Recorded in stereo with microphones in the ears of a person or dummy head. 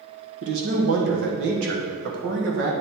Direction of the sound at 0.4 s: 60° right (ahead or behind).